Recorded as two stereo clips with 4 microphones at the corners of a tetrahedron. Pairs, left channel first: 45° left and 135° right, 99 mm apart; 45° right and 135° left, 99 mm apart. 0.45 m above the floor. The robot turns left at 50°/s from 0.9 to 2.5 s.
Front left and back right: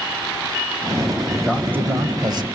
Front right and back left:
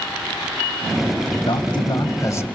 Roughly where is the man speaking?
Ahead right.